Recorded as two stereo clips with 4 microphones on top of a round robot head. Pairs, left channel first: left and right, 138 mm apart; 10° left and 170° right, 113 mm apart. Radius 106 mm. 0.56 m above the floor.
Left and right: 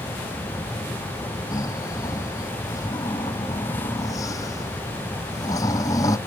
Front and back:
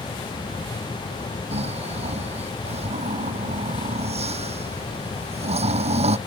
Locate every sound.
1.5 s snoring: 160° left